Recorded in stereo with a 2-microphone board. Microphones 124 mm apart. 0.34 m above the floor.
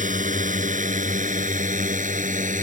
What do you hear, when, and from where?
0.0 s a drone: 75° right (ahead or behind)